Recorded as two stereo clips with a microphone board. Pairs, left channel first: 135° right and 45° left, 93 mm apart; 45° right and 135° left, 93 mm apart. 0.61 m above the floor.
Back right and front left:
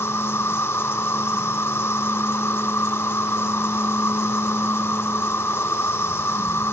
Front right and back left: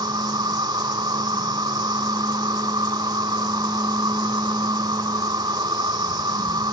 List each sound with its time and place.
0.0 s an insect: 165° left